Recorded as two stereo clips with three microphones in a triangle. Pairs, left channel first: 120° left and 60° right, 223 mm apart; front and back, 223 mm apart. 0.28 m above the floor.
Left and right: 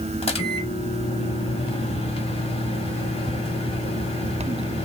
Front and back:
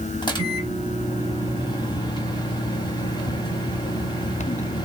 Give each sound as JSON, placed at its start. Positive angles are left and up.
{"t": 0.2, "sound": "a microwave", "azimuth_deg": 65, "distance_m": 1.1}